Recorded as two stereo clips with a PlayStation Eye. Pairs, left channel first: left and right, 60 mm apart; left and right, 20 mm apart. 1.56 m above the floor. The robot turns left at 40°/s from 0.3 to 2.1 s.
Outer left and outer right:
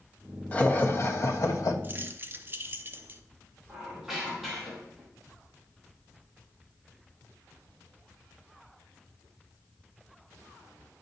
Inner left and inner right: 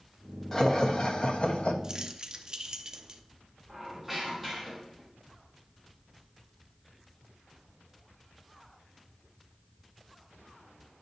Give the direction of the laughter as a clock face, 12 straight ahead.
7 o'clock.